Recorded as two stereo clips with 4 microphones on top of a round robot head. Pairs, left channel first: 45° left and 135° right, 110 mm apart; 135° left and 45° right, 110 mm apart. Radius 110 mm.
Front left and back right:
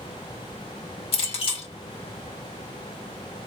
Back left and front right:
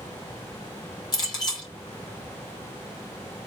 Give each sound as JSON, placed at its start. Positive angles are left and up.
{"t": 1.1, "sound": "a clink", "azimuth_deg": 80, "distance_m": 1.6}